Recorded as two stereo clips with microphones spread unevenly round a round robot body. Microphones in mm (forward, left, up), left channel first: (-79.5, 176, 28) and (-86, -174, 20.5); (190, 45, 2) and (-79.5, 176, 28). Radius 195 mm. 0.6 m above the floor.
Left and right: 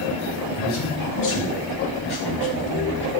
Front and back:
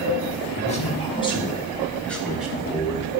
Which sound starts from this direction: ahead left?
A man speaking, at 0.6 s.